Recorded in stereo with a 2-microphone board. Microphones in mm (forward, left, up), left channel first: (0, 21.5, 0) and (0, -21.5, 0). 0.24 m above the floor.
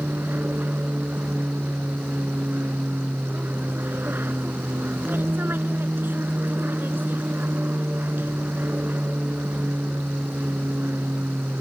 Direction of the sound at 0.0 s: 50° right (ahead or behind).